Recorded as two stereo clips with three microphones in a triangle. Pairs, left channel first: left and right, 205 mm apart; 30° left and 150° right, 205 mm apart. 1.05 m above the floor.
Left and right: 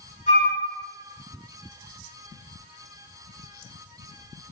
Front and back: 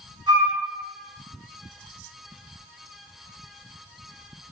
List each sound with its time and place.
0.3 s a flute: 145° left, 1.6 m